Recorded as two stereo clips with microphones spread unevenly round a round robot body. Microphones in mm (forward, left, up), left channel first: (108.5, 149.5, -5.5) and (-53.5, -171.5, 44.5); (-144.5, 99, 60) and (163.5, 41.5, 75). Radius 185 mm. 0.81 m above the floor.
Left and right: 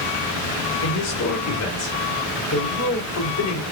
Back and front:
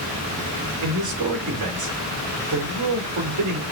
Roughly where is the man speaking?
Ahead.